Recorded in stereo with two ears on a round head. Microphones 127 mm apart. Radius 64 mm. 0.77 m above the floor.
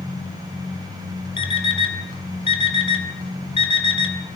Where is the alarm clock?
40° left (ahead or behind), 3 m.